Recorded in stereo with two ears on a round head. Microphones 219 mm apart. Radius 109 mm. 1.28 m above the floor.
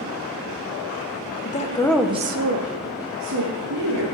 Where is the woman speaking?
35° left (ahead or behind), 1.1 m; by 4.0 s 85° right, 3 m.